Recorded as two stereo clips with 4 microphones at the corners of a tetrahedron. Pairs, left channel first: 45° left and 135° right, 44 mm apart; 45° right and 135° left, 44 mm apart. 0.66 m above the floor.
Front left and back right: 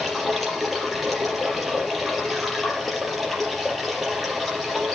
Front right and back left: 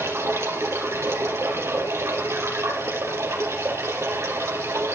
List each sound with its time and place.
0.0 s running water: 135° left, 4.5 m